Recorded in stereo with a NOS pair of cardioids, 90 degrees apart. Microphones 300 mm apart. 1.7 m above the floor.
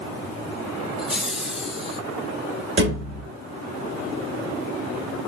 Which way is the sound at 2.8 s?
40° right.